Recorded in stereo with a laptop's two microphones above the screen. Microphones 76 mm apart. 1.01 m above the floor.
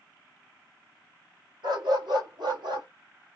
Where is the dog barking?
75° right (ahead or behind), 1.9 m.